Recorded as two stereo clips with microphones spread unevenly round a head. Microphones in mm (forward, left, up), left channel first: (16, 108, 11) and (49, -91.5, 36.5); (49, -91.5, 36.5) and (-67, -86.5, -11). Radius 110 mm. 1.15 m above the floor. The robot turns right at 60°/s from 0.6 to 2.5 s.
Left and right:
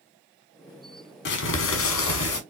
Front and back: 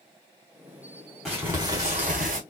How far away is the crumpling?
About 1.1 m.